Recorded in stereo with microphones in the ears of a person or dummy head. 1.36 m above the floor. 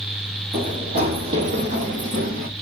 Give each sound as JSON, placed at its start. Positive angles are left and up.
{"t": 0.5, "sound": "running footsteps", "side_deg": -25, "distance_m": 2.5}